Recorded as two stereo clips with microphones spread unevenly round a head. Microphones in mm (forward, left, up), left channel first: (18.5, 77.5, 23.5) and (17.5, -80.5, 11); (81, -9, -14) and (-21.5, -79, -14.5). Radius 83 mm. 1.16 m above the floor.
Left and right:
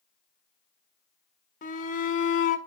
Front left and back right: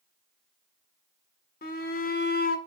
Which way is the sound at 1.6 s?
50° left.